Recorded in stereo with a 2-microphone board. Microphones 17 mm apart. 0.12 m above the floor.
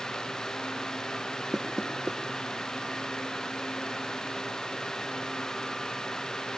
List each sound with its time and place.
1.5 s knocking: 35° right (ahead or behind), 1.5 m